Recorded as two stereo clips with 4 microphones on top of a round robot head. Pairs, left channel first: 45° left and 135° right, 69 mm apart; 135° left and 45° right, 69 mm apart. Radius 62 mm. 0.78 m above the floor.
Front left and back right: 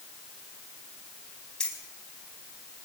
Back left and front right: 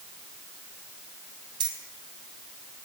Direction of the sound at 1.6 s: 35° right.